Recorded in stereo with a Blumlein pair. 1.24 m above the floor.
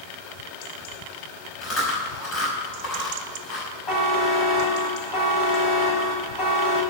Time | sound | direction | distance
1.6 | chewing | 25° left | 6 m
3.9 | a buzzer | 20° left | 3 m